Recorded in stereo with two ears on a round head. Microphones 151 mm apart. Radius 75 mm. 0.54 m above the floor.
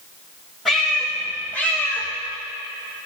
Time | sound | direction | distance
0.7 | a cat meowing | centre (ahead or behind) | 6.5 m